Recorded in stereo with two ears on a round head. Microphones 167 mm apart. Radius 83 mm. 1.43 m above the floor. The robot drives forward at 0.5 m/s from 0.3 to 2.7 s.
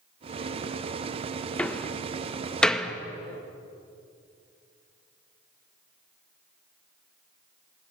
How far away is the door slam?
About 0.8 m.